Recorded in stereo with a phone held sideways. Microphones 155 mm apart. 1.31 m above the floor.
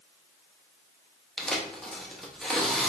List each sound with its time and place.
1.4 s tearing paper: 5° left (ahead or behind), 0.5 m